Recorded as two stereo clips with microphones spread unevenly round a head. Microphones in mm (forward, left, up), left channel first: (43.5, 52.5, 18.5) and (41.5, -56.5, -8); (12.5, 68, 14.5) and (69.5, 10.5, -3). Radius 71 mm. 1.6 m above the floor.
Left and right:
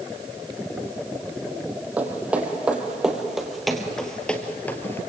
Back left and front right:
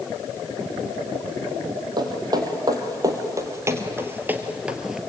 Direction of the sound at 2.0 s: 10° right.